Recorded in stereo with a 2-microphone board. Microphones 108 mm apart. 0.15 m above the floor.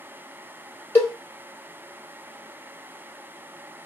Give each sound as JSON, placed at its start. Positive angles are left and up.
{"t": 0.9, "sound": "a cowbell", "side_deg": 20, "distance_m": 1.2}